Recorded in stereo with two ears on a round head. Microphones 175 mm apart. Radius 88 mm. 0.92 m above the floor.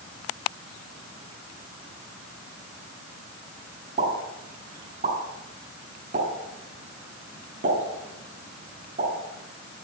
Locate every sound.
4.0 s a pop: 45° right (ahead or behind), 6.5 m